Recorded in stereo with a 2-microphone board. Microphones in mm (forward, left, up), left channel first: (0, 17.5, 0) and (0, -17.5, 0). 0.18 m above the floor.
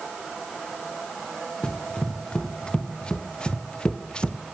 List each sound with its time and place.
1.6 s running footsteps: 25° left (ahead or behind), 4.5 m; by 4.4 s 30° left (ahead or behind), 2 m